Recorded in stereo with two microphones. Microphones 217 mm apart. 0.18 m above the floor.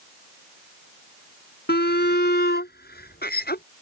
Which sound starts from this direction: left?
A shout, at 1.7 s.